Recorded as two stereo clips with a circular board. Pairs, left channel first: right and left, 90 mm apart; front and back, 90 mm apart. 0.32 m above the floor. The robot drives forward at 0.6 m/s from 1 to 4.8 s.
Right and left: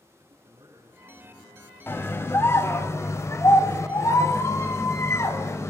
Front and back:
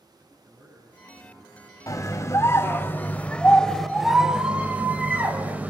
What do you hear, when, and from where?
0.2 s a man speaking: 120° left, 8.5 m
1.9 s a scream: 35° right, 2 m; by 5.7 s 120° right, 1.7 m